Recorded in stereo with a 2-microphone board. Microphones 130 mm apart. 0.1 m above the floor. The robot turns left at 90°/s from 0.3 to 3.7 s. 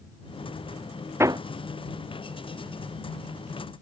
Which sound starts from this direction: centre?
Hammering, at 1.2 s.